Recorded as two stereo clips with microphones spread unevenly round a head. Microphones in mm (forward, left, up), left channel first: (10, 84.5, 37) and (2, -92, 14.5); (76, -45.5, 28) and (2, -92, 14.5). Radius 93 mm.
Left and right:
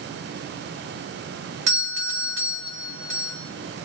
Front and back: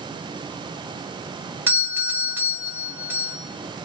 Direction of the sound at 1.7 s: 80° right.